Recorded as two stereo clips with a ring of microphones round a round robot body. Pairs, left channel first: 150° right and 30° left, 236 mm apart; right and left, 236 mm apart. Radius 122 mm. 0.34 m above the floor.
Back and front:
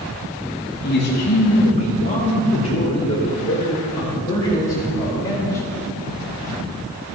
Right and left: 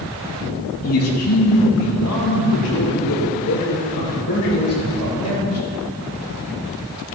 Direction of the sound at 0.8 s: 110° right.